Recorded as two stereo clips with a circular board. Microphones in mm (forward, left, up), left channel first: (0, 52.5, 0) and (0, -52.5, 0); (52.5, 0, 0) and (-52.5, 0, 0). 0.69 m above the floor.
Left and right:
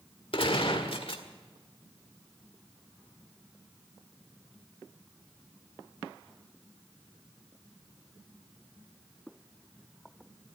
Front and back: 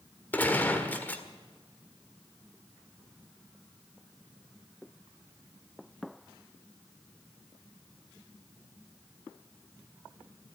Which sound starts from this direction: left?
A gunshot, at 0.3 s.